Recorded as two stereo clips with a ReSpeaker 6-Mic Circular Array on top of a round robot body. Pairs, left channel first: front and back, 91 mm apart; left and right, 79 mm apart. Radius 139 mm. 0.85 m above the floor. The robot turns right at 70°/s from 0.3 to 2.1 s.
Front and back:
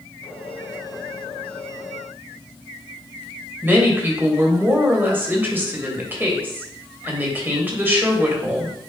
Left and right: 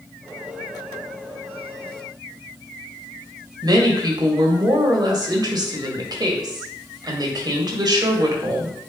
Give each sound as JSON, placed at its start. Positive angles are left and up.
{"t": 3.6, "sound": "a woman speaking", "azimuth_deg": -115, "distance_m": 2.0}